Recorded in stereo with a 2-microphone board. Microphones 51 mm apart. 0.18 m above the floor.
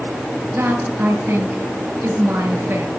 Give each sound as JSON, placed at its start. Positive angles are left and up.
{"t": 0.5, "sound": "a woman speaking", "side_deg": -50, "distance_m": 3.5}